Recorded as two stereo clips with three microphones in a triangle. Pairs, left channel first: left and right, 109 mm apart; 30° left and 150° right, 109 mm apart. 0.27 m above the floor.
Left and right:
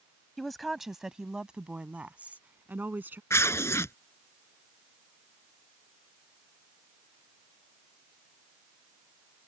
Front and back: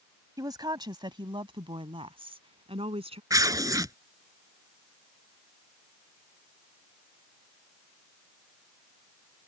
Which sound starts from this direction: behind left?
Tearing paper, at 3.3 s.